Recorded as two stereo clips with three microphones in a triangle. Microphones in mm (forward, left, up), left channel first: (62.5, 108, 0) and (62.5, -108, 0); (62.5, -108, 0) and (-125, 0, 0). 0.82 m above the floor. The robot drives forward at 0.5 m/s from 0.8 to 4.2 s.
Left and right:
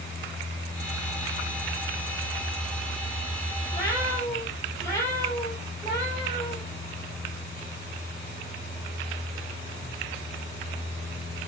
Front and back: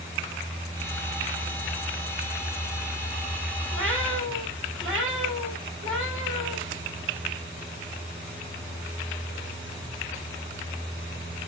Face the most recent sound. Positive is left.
turn(degrees=170)